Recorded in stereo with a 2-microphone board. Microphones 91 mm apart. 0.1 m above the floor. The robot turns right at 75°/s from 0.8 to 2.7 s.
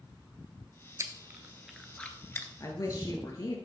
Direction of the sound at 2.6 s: 40° left (ahead or behind).